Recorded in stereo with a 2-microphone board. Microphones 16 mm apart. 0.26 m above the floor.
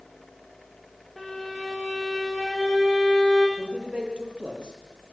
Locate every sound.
1.2 s a violin: 5° left (ahead or behind), 7.5 m
3.6 s a man speaking: 75° right (ahead or behind), 8.5 m